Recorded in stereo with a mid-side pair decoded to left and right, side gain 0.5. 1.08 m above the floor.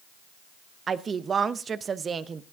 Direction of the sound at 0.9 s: 40° right.